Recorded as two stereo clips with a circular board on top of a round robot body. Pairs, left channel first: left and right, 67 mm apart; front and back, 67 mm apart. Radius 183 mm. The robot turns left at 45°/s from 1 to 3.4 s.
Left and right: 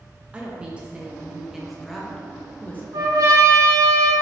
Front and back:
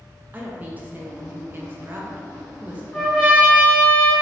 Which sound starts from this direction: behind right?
A woman speaking, at 0.3 s.